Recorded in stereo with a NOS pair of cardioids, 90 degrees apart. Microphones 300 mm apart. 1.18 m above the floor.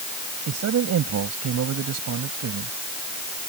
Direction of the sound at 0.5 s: 60° right.